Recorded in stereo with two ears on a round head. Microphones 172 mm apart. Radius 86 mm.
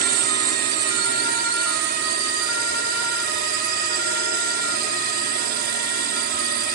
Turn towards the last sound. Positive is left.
turn(degrees=-55)  # may be behind; listen again after turning